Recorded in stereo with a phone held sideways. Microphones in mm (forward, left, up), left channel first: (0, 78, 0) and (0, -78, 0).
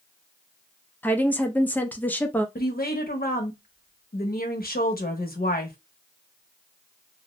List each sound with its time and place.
1.0 s a woman speaking: 10° left (ahead or behind), 0.5 m
2.5 s a woman speaking: 75° left (ahead or behind), 0.7 m